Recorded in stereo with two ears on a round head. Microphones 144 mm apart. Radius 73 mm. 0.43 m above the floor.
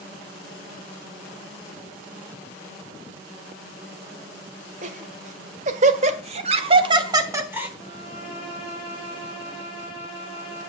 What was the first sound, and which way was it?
Laughter, 45° right (ahead or behind).